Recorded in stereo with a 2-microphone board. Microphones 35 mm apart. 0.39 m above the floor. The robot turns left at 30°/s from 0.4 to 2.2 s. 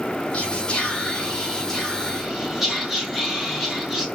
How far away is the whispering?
About 2.5 m.